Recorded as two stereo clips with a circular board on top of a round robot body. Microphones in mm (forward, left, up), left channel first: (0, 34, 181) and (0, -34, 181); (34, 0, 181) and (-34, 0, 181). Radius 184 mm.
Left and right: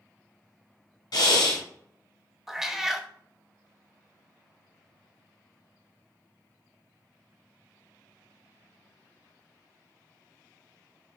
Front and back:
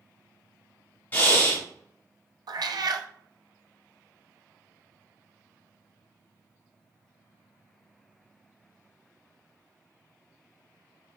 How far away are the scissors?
I don't hear scissors.